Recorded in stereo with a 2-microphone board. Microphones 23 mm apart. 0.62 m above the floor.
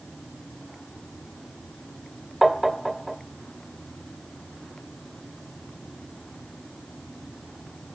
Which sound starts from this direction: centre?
Tapping, at 2.4 s.